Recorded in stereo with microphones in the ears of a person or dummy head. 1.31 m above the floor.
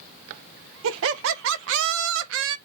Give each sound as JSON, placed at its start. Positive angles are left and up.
{"t": 0.8, "sound": "laughter", "side_deg": -75, "distance_m": 0.7}